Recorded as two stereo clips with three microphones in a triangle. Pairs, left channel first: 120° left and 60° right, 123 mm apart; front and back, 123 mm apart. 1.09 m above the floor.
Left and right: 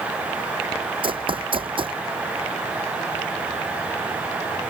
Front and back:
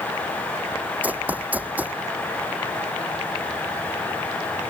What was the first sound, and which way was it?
Running footsteps, 105° right.